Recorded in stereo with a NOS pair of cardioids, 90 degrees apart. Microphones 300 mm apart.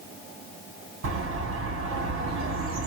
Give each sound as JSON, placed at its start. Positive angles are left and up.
{"t": 1.0, "sound": "a bird", "azimuth_deg": -45, "distance_m": 1.9}